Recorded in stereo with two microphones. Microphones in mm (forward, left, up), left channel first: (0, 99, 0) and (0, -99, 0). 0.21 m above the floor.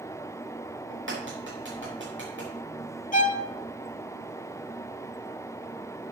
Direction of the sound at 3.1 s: 40° left (ahead or behind).